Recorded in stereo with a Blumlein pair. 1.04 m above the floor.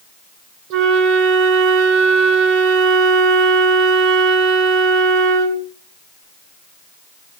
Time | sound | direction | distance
0.7 | a flute | 45° right | 4 m